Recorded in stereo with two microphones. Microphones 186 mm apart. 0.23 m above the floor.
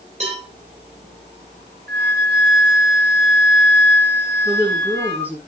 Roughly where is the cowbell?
Right.